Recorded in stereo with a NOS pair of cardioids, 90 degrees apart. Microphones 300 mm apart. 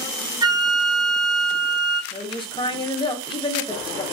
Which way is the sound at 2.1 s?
15° left.